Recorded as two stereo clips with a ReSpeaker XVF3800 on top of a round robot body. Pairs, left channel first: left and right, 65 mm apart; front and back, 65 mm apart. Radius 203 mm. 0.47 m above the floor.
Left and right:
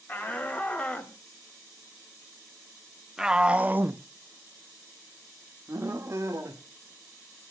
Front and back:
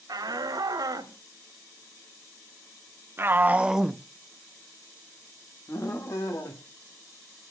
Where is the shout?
155° left, 2.5 m; by 6.6 s 40° right, 2 m.